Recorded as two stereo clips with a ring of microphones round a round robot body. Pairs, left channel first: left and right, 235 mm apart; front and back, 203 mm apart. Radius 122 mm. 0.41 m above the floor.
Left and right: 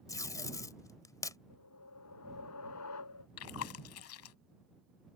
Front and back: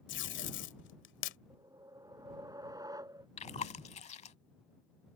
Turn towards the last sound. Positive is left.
turn(degrees=60)